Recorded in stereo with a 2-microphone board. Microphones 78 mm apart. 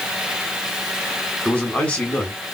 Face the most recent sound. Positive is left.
turn(degrees=20)  # may be behind; listen again after turning